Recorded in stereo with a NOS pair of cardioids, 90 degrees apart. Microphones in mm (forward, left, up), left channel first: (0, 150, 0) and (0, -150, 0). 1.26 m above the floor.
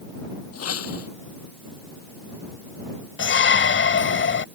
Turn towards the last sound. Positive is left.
turn(degrees=40)